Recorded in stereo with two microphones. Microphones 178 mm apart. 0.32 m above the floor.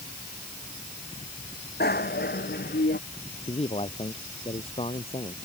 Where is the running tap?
No running tap in this recording.